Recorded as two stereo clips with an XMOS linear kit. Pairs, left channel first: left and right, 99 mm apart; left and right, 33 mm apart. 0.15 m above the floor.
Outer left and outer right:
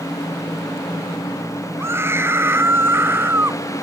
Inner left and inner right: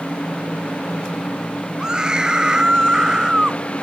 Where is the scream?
25° right (ahead or behind); by 3.6 s 20° right (ahead or behind).